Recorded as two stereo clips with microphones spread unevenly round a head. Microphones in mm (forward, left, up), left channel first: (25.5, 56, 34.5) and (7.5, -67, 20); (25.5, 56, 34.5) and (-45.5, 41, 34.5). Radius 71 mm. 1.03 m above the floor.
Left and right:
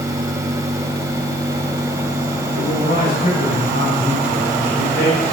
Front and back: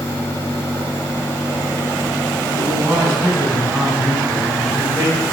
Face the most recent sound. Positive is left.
turn(degrees=105)